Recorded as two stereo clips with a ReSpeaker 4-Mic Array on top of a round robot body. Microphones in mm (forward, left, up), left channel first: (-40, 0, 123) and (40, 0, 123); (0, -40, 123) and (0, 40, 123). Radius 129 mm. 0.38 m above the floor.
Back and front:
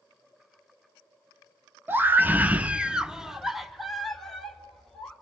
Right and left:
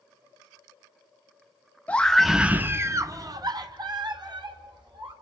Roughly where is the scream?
Ahead right.